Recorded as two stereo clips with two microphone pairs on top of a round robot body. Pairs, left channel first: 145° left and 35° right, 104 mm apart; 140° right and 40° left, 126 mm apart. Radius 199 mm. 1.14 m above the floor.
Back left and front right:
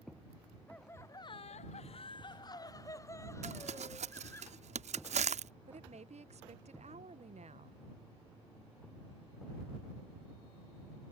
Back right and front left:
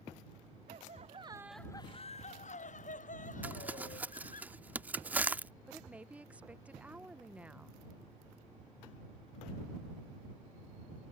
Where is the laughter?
70° left; by 4.4 s 150° right.